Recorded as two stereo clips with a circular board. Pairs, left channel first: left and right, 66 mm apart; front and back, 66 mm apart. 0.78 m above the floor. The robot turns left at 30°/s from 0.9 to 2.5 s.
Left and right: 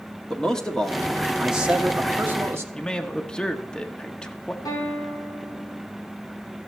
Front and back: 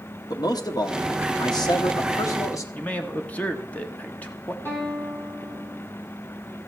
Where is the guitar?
60° left, 4.5 m.